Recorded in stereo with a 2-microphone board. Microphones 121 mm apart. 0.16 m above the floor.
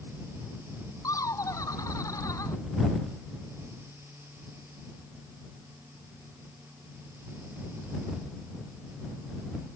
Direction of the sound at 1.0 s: 25° left (ahead or behind).